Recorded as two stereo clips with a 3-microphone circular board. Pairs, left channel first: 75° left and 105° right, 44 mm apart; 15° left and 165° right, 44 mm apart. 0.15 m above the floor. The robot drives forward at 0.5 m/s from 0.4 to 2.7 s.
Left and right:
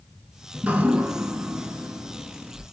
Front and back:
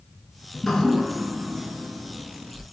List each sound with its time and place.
0.5 s dripping: 55° right, 0.6 m; by 2.6 s 150° right, 1.0 m